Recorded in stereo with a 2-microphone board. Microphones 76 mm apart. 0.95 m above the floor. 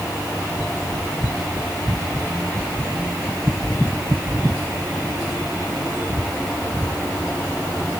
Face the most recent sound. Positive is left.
No sound to turn to.